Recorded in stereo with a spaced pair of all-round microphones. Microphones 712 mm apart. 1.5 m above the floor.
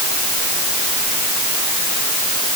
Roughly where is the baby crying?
No baby crying in this recording.